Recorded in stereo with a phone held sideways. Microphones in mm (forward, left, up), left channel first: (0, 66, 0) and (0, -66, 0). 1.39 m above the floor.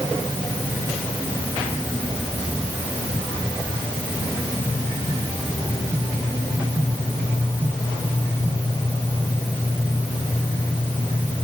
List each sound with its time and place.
Only background noise.